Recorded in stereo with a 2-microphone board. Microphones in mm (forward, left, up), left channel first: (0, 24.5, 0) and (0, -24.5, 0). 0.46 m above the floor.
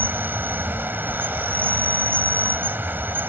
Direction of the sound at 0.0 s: 45° right (ahead or behind).